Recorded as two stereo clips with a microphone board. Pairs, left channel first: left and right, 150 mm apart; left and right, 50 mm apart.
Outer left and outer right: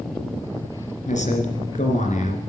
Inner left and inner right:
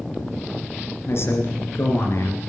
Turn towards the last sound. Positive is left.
turn(degrees=55)  # may be behind; listen again after turning